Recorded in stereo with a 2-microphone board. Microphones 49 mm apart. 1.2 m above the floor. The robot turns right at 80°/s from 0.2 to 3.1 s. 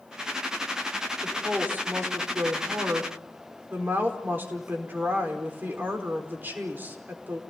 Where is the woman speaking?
170° left, 4.5 m; by 7.4 s 40° right, 4.5 m.